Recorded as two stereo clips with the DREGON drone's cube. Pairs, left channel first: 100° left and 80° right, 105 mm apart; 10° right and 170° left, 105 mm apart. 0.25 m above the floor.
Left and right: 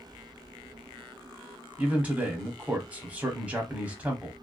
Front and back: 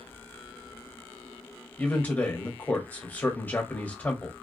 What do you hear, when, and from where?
1.8 s a man speaking: 40° right, 1.0 m